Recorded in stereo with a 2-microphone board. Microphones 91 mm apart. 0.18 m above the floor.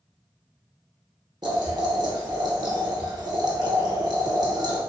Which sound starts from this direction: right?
Boiling, at 1.4 s.